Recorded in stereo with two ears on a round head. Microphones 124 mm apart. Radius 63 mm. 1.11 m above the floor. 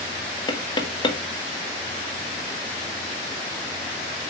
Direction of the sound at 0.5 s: 35° left (ahead or behind).